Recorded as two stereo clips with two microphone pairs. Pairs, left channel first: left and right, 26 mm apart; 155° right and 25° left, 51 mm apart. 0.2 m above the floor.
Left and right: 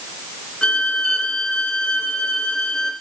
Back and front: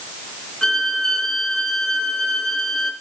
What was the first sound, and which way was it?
A violin, 130° left.